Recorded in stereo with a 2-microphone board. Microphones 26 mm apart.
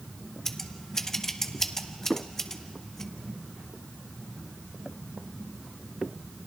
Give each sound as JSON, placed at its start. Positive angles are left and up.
{"t": 0.5, "sound": "scissors", "side_deg": 20, "distance_m": 1.0}